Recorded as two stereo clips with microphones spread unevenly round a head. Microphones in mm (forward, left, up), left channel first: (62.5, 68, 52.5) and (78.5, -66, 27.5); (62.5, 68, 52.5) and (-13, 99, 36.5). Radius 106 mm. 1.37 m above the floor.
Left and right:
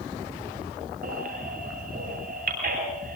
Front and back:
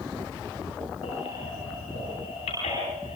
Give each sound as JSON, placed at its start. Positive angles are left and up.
{"t": 1.0, "sound": "a baby crying", "azimuth_deg": -70, "distance_m": 9.0}